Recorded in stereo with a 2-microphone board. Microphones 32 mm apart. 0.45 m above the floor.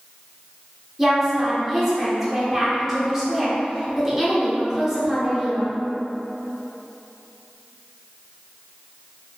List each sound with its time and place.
1.0 s a woman speaking: 5° right (ahead or behind), 0.8 m